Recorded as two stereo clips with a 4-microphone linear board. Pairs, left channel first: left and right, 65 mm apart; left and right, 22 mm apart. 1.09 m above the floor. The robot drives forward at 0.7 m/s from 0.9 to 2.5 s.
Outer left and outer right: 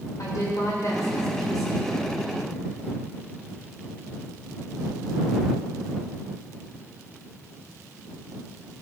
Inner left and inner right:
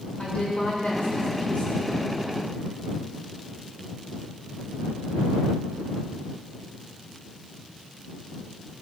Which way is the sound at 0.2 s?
55° left (ahead or behind).